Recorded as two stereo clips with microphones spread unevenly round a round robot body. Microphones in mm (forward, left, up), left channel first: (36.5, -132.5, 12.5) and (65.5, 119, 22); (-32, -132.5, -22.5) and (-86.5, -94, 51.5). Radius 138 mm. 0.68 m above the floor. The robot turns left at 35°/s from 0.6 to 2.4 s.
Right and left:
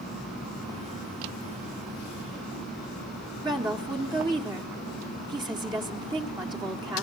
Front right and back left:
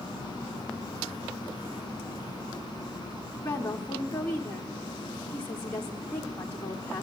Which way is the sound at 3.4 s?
10° left.